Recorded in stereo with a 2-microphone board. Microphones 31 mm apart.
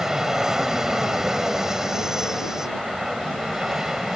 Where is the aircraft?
20° right (ahead or behind).